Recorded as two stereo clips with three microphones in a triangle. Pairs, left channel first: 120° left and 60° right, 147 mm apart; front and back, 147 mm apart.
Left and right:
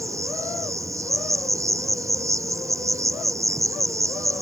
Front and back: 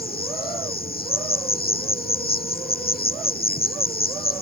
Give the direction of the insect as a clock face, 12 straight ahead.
12 o'clock.